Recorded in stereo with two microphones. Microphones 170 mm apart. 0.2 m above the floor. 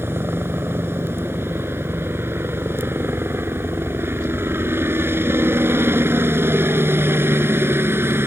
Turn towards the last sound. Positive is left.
turn(degrees=-15)  # may be behind; listen again after turning